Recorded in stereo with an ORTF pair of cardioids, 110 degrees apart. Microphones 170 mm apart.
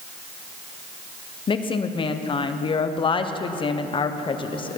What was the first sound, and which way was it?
A woman speaking, 30° left.